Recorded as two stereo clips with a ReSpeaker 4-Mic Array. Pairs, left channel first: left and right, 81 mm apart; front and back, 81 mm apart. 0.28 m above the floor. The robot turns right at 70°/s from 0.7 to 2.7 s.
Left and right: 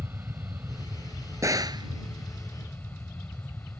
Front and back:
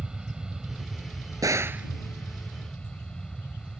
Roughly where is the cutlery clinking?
I don't hear cutlery clinking.